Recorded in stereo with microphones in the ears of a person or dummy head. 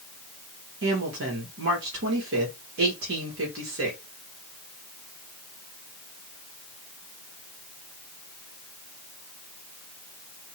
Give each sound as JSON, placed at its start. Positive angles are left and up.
{"t": 0.8, "sound": "a woman speaking", "side_deg": -75, "distance_m": 1.7}